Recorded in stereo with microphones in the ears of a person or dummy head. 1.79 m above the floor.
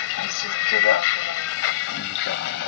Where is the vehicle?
70° left (ahead or behind); by 2.7 s 65° left (ahead or behind).